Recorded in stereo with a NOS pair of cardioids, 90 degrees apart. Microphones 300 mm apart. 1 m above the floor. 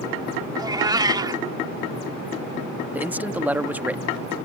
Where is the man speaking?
5° right.